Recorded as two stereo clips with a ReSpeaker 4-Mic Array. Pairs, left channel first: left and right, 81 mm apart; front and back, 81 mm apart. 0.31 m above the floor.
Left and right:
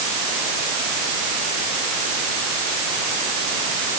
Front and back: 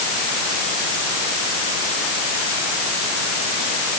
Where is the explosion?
No explosion in this recording.